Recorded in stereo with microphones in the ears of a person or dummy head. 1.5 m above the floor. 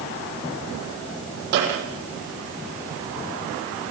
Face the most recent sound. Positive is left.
turn(degrees=-65)  # may be behind; listen again after turning